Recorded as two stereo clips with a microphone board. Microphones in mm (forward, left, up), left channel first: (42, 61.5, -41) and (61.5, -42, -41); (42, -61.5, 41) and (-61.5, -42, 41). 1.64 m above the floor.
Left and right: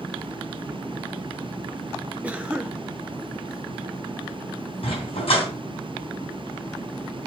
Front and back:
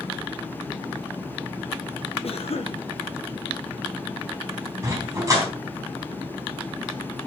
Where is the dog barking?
115° left, 3.5 m.